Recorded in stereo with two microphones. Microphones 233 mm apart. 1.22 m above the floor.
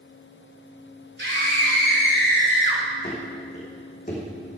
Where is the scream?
50° right (ahead or behind), 3.5 m; by 2.8 s 55° right (ahead or behind), 4.5 m.